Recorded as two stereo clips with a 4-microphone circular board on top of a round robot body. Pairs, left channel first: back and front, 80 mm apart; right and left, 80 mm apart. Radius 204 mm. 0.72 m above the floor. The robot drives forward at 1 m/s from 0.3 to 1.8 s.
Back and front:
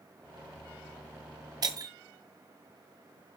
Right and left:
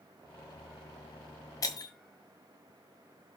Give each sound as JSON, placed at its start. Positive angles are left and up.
{"t": 1.6, "sound": "breaking glass", "azimuth_deg": -40, "distance_m": 1.4}